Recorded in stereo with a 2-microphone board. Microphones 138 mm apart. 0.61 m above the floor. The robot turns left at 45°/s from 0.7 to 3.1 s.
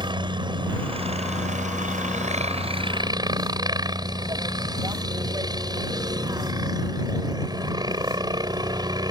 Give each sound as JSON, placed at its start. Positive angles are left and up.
{"t": 0.0, "sound": "a helicopter", "azimuth_deg": -40}